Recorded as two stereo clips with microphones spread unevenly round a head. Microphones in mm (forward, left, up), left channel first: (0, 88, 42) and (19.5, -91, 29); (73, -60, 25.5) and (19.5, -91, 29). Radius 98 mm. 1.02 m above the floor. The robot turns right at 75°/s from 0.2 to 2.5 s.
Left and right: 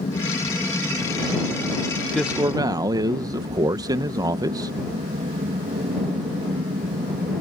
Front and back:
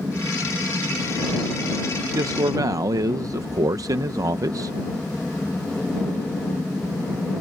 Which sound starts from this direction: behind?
A man speaking, at 2.1 s.